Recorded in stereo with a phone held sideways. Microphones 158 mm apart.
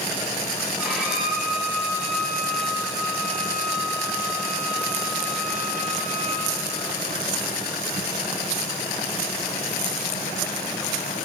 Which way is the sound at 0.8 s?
5° right (ahead or behind).